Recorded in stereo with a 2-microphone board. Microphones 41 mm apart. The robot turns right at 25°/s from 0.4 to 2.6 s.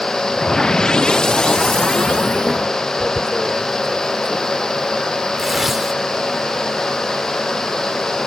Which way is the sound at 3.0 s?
10° right (ahead or behind).